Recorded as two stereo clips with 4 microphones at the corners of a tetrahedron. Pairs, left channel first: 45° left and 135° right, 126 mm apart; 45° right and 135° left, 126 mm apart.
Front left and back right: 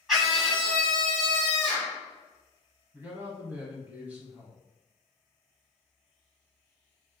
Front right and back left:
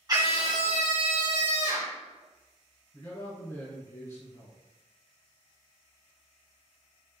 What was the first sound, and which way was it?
A scream, 140° left.